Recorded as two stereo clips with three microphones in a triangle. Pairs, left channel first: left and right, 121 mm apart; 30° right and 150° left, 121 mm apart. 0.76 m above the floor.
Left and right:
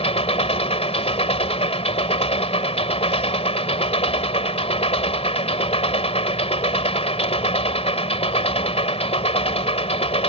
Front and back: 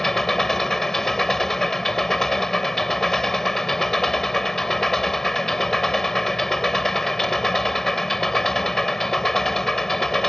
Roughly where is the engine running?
Ahead left.